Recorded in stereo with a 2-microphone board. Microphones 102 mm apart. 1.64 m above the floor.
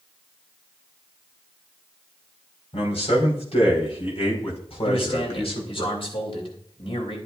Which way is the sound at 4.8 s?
65° left (ahead or behind).